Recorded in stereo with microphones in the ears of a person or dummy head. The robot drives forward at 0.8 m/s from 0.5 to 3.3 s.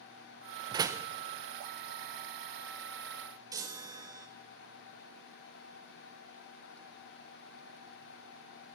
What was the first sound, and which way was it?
A door slam, 30° right (ahead or behind).